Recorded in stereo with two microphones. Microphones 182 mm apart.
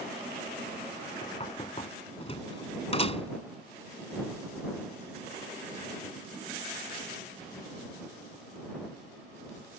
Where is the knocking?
35° left (ahead or behind).